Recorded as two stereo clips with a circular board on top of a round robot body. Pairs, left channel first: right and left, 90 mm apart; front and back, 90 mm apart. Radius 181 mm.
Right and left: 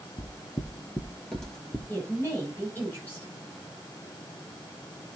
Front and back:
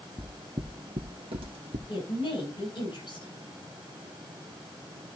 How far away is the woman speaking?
About 7 m.